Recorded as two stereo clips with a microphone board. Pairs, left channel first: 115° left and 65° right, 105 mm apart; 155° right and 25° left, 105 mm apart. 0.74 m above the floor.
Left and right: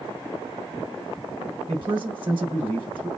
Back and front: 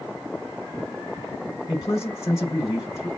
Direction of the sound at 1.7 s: 100° right.